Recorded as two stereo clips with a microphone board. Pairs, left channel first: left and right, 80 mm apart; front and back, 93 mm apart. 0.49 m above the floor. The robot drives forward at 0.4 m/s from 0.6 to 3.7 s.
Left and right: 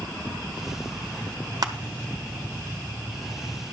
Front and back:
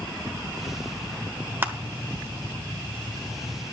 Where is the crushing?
115° right, 1.0 m; by 1.7 s 120° right, 1.1 m.